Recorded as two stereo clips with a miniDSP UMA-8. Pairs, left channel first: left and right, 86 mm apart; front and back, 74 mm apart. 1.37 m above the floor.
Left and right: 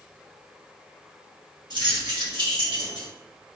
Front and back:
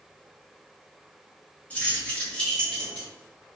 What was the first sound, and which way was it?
Keys jangling, 70° right.